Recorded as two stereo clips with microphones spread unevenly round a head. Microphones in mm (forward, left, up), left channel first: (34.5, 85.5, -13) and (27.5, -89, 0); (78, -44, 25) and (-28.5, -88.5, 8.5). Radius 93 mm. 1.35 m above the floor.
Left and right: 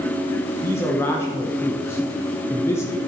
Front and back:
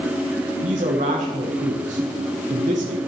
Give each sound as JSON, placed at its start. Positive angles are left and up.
{"t": 0.6, "sound": "a man speaking", "azimuth_deg": 165, "distance_m": 1.0}